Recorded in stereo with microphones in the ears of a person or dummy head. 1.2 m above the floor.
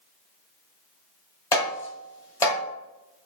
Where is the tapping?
20° left (ahead or behind), 1.9 m.